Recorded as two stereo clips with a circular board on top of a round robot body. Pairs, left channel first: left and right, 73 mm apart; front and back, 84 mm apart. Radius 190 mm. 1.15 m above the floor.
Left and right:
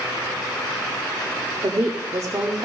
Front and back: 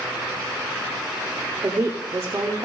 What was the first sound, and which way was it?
A woman speaking, 125° right.